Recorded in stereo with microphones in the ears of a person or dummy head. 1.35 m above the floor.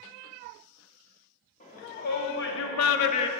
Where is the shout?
40° left (ahead or behind), 1.8 m; by 3.3 s 20° left (ahead or behind), 0.6 m.